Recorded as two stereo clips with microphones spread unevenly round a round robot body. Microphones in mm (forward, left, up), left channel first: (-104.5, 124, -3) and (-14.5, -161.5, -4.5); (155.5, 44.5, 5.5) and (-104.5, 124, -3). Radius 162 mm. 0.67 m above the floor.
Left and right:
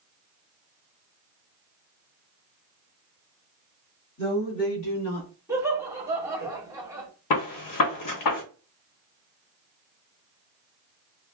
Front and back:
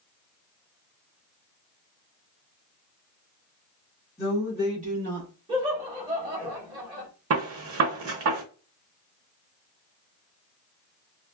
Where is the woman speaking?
60° left, 1.4 m; by 5.3 s 130° left, 2.0 m.